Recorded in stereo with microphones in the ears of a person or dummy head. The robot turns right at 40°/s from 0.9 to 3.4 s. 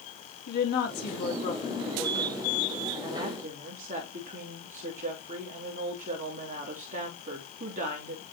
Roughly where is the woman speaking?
Behind left.